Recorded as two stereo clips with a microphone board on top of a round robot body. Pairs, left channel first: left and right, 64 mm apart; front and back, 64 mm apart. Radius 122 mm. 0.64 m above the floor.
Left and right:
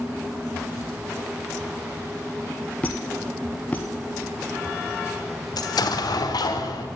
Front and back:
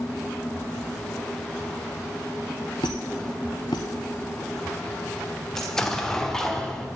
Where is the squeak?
30° left, 0.6 m.